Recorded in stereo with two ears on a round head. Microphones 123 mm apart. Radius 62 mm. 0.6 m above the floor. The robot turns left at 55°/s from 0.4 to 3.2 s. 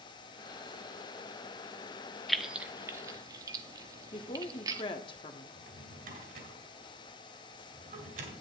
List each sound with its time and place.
2.3 s keys jangling: centre (ahead or behind), 0.6 m; by 4.8 s 25° right (ahead or behind), 0.6 m
4.1 s a woman speaking: 35° left (ahead or behind), 1.0 m
5.5 s a drawer: 65° right (ahead or behind), 3 m